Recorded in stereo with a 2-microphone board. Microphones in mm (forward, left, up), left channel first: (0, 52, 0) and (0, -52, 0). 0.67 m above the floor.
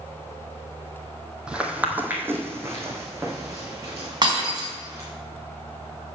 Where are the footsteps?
10° right (ahead or behind), 1.3 m; by 5.1 s 30° right (ahead or behind), 4 m.